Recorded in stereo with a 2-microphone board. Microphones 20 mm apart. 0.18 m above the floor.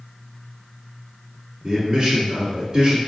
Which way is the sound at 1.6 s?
25° right (ahead or behind).